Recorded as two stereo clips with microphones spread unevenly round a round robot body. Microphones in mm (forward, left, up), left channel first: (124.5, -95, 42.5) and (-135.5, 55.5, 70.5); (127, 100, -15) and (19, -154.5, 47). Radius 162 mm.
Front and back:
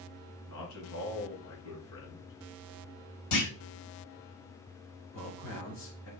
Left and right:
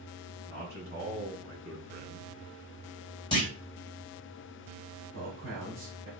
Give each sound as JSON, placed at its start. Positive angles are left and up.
{"t": 0.5, "sound": "a man speaking", "azimuth_deg": -55, "distance_m": 3.0}
{"t": 3.3, "sound": "a clunk", "azimuth_deg": -5, "distance_m": 1.8}
{"t": 5.1, "sound": "a man speaking", "azimuth_deg": -60, "distance_m": 2.5}